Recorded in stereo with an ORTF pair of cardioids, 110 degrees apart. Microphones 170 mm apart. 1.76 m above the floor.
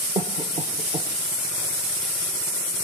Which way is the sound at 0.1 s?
35° right.